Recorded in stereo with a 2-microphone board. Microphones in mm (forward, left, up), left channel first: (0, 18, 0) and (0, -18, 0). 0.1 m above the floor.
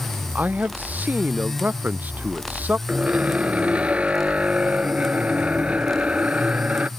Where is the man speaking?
50° right (ahead or behind).